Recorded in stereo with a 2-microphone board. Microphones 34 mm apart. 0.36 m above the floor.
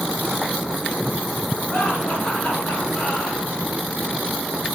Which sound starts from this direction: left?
Laughter, at 1.7 s.